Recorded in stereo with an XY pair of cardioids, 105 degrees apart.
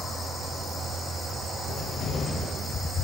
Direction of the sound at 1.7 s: 65° left.